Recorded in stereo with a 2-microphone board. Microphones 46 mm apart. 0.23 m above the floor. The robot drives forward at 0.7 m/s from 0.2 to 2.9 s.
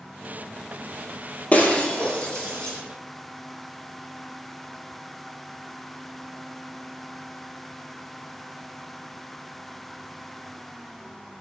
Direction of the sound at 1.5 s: 30° left (ahead or behind).